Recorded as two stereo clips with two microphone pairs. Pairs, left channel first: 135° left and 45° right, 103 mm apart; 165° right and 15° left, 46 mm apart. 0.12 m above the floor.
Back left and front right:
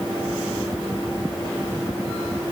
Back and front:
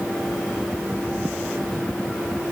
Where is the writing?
I don't hear writing.